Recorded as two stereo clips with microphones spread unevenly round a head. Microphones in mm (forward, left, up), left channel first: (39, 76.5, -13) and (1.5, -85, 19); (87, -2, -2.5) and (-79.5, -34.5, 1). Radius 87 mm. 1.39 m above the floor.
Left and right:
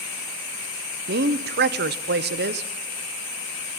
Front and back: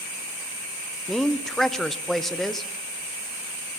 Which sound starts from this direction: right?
A woman speaking, at 1.1 s.